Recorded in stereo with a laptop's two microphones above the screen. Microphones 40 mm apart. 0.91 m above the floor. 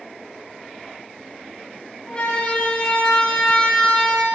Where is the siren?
25° left (ahead or behind), 7 m; by 4.2 s 20° left (ahead or behind), 5 m.